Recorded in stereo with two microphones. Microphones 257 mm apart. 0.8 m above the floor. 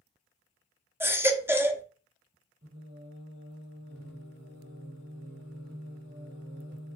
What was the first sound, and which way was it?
A baby crying, 10° right (ahead or behind).